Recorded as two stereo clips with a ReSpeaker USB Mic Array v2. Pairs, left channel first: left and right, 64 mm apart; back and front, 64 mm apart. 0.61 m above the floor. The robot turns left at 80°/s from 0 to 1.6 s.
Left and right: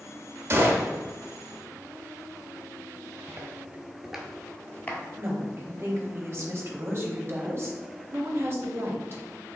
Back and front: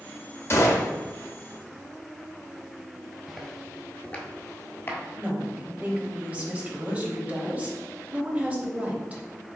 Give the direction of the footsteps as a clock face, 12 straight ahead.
3 o'clock.